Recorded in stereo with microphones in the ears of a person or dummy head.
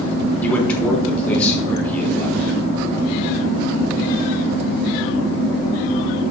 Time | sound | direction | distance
0.4 | a man speaking | 15° left (ahead or behind) | 3.5 m